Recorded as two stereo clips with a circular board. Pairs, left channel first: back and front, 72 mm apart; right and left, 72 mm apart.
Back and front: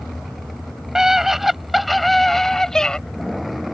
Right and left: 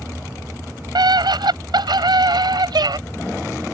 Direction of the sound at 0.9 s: 85° left.